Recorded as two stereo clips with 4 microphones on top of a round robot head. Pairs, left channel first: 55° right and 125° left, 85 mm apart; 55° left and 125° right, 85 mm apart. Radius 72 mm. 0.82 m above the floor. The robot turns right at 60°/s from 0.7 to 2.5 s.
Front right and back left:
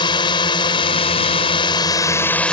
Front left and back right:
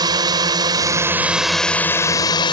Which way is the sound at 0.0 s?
85° right.